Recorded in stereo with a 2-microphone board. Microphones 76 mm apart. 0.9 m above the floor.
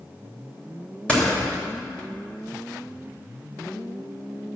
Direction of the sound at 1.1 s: 15° left (ahead or behind).